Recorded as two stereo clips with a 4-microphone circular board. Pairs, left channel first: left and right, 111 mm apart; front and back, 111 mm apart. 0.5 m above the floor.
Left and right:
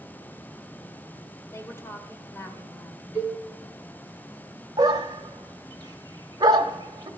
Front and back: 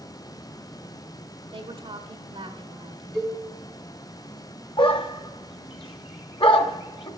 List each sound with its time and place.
1.5 s a woman speaking: 155° left, 1.3 m
3.1 s a cowbell: 85° left, 5 m
4.8 s a dog barking: 35° right, 0.8 m